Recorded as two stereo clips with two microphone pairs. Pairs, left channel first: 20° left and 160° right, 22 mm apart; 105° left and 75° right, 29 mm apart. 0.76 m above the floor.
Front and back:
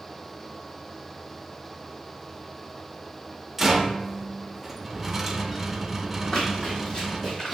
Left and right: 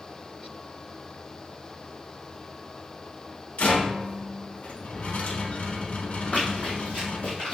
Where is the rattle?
120° left, 0.6 m.